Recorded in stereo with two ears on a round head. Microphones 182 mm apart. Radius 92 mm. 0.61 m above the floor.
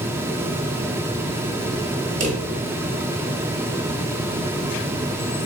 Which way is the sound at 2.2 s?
40° right (ahead or behind).